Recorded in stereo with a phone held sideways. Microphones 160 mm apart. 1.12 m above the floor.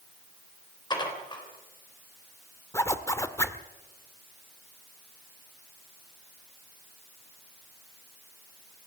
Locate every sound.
0.9 s dishes clattering: 30° left (ahead or behind), 3.5 m
2.7 s a zipper: 15° left (ahead or behind), 1.0 m